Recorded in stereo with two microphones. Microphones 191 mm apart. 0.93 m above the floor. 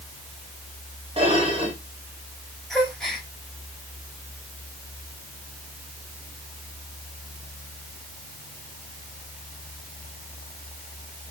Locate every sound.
1.2 s dishes clattering: 30° right (ahead or behind), 3 m
2.7 s a gasp: centre (ahead or behind), 4 m